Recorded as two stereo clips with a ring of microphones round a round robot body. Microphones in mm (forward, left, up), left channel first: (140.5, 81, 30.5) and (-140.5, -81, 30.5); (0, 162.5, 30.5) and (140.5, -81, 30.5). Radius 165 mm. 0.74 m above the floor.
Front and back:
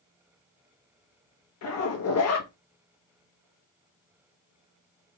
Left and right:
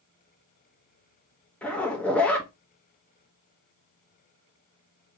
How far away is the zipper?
About 1.1 m.